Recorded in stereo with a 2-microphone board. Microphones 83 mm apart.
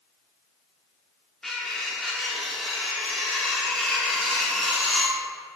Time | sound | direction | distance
1.4 | cutlery clinking | 5° left (ahead or behind) | 0.9 m